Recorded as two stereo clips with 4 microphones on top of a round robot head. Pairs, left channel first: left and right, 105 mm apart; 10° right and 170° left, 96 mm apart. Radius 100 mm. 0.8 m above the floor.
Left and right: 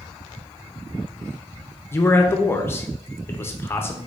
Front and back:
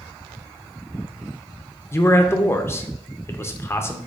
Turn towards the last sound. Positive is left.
turn(degrees=35)